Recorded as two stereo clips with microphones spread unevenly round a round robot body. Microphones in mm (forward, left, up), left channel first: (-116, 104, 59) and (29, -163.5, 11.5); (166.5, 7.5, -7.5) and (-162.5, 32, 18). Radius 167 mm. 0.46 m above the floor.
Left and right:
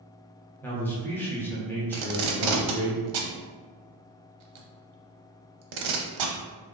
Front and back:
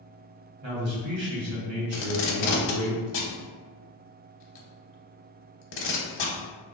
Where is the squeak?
No squeak in this recording.